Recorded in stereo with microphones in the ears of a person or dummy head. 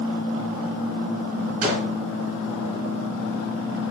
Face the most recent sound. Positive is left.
turn(degrees=-50)  # may be behind; listen again after turning